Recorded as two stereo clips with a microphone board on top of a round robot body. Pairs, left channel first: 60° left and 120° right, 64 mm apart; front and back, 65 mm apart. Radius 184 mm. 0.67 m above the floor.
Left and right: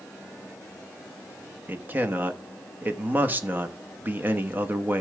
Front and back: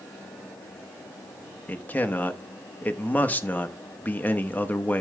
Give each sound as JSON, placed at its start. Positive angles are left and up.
{"t": 1.7, "sound": "a man speaking", "azimuth_deg": -60, "distance_m": 1.3}